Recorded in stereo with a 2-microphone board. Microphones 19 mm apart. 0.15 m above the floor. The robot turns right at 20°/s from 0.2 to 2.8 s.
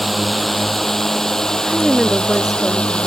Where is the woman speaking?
45° right (ahead or behind); by 3.1 s 25° right (ahead or behind).